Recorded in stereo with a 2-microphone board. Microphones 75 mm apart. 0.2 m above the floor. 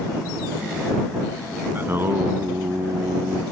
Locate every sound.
1.8 s singing: 30° right (ahead or behind)